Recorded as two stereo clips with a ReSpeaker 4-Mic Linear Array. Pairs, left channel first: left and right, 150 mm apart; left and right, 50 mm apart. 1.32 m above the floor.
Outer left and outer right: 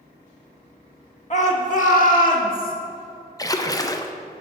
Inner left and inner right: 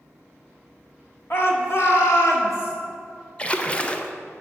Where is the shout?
50° left (ahead or behind), 1.4 m; by 2.7 s 65° left (ahead or behind), 2.0 m.